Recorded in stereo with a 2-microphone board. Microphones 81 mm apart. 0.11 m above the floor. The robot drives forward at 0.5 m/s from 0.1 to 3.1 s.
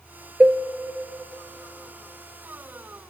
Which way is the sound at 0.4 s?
15° right (ahead or behind).